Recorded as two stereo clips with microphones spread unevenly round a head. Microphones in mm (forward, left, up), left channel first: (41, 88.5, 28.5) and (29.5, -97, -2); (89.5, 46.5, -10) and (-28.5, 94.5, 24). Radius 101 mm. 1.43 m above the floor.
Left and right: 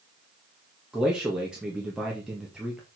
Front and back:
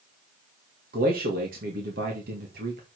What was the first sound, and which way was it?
A man speaking, straight behind.